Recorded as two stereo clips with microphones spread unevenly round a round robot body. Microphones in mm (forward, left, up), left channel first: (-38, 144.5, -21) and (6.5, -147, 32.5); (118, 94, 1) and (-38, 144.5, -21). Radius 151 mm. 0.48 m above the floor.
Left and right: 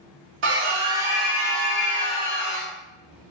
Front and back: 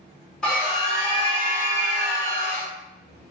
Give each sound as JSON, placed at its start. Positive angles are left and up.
{"t": 0.4, "sound": "a scream", "azimuth_deg": -115, "distance_m": 1.0}